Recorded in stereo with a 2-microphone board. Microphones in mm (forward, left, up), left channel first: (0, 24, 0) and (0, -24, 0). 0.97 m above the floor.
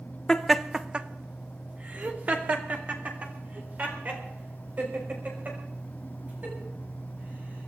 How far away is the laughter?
About 0.7 m.